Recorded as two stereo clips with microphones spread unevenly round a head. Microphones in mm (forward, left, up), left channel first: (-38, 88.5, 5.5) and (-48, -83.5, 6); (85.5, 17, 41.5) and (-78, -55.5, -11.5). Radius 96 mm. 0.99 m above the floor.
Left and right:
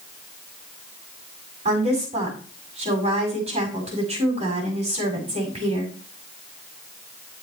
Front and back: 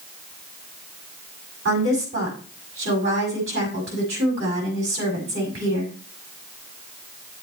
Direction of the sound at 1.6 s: 145° right.